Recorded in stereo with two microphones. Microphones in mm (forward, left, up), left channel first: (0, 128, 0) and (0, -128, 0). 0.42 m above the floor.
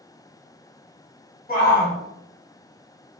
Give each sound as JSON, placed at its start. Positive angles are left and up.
{"t": 1.5, "sound": "a shout", "side_deg": 35, "distance_m": 1.1}